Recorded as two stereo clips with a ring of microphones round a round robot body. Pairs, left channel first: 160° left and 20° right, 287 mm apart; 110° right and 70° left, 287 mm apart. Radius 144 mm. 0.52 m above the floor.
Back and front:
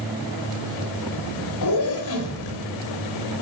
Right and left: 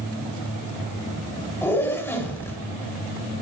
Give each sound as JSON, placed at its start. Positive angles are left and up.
{"t": 1.6, "sound": "a zipper", "azimuth_deg": 165, "distance_m": 3.0}